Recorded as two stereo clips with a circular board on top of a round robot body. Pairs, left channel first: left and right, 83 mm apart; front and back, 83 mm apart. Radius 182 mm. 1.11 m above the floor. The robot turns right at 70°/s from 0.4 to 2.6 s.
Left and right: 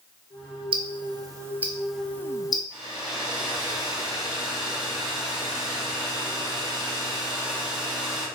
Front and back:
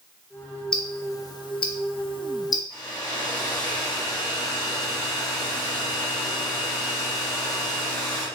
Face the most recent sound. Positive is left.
turn(degrees=-50)